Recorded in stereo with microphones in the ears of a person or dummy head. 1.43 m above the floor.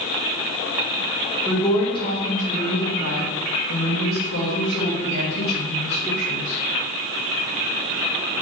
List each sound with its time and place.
1.4 s a woman speaking: 15° left (ahead or behind), 1.3 m; by 6.6 s 50° left (ahead or behind), 2.5 m